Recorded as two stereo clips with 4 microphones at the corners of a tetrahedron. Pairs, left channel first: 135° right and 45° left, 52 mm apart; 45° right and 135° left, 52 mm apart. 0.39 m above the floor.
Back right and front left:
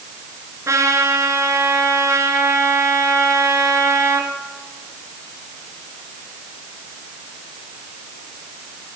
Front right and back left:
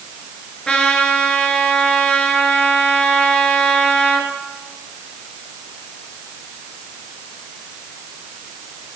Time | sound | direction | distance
0.7 | a trumpet | 30° left | 4 m